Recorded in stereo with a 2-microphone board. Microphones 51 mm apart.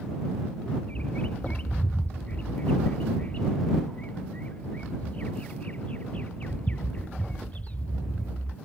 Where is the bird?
30° left (ahead or behind).